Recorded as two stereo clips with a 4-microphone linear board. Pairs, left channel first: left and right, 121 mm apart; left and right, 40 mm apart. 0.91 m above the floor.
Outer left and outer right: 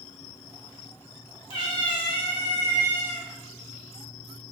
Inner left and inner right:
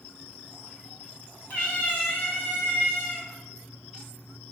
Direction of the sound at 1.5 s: 45° left (ahead or behind).